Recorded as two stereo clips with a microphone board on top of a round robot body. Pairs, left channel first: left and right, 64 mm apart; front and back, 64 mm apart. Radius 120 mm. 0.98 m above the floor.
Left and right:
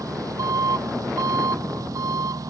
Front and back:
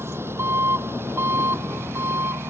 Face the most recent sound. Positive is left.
turn(degrees=-130)